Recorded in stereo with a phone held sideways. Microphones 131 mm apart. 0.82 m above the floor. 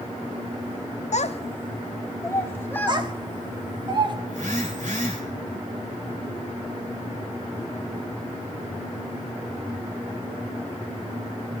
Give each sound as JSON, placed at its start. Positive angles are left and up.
{"t": 1.1, "sound": "a child speaking", "side_deg": 65, "distance_m": 0.5}
{"t": 2.9, "sound": "a child speaking", "side_deg": -35, "distance_m": 1.1}
{"t": 4.3, "sound": "a phone buzzing", "side_deg": -85, "distance_m": 2.5}